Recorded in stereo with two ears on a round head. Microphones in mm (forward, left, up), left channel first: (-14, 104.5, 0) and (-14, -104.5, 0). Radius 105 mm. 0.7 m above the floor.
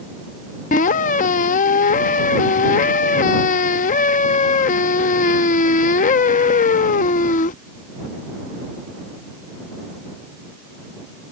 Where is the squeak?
35° left (ahead or behind).